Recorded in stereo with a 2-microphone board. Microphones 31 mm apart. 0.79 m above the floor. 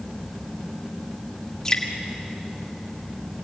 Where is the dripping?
20° left (ahead or behind), 2.5 m.